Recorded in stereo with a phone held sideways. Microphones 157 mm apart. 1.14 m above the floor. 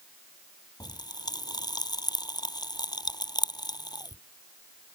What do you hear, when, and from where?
0.8 s a pop: 25° left (ahead or behind)